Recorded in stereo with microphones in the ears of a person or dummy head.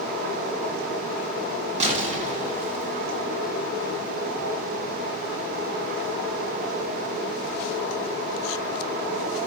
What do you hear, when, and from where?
1.8 s an explosion: 40° right (ahead or behind), 0.6 m